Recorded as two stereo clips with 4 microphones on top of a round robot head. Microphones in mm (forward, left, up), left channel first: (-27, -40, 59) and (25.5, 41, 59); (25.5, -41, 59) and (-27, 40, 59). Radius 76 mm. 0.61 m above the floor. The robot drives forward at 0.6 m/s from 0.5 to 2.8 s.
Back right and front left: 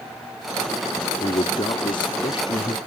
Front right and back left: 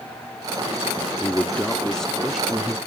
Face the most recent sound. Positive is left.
turn(degrees=-150)